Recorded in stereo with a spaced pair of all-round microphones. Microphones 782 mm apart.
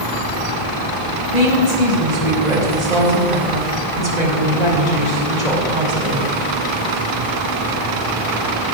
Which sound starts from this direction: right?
A woman speaking, at 1.3 s.